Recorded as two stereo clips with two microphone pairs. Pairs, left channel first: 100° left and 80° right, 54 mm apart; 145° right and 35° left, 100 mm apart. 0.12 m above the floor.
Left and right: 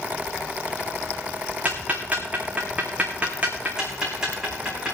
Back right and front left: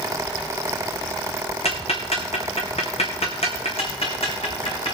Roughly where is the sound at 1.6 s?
Behind right.